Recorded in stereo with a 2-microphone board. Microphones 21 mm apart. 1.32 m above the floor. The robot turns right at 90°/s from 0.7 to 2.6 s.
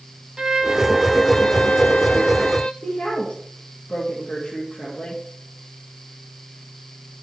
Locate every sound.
0.4 s a violin: 35° right, 0.8 m; by 2.7 s 135° left, 0.8 m
2.8 s a woman speaking: 65° left (ahead or behind), 2.5 m